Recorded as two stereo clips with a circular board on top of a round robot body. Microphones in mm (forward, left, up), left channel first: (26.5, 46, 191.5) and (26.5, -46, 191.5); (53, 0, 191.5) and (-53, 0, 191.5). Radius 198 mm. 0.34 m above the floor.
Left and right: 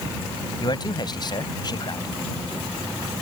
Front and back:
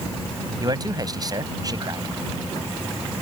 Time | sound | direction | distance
0.6 | a man speaking | 130° left | ?